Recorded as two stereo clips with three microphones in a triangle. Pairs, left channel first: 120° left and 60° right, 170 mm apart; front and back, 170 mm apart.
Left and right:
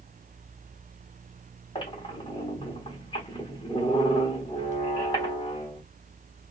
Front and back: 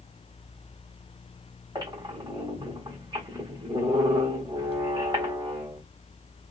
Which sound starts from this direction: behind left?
A squeak, at 1.8 s.